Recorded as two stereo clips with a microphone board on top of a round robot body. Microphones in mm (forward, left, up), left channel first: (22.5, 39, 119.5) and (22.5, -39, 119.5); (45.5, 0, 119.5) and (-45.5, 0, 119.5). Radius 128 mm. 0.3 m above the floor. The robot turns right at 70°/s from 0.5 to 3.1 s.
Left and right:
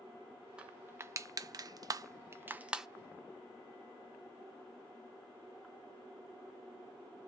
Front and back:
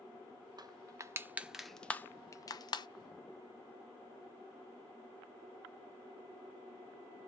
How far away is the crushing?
About 0.5 m.